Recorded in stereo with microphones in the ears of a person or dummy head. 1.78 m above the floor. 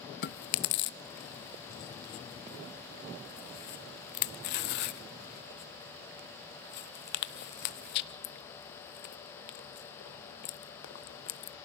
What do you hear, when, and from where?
0.2 s chewing: 50° left (ahead or behind), 0.6 m